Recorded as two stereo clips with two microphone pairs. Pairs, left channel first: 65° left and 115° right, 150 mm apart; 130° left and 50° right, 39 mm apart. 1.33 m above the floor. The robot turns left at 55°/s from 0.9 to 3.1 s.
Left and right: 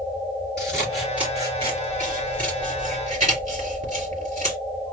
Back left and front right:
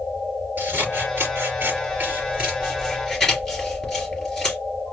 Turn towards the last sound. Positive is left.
turn(degrees=-140)